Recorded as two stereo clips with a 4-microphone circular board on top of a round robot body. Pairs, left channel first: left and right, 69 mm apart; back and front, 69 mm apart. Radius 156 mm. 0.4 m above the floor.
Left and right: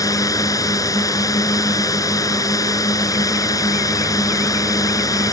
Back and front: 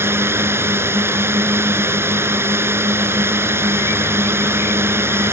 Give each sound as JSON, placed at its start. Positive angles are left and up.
{"t": 0.0, "sound": "a drone", "azimuth_deg": 55}